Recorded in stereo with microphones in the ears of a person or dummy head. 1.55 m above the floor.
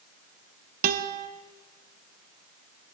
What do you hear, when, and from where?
0.8 s a guitar: 45° right (ahead or behind), 0.8 m